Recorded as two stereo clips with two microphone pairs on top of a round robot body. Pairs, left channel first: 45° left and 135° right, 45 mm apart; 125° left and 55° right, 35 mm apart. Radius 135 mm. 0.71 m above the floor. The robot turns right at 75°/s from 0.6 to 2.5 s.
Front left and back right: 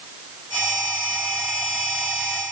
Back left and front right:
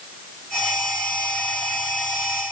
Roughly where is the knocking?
I don't hear knocking.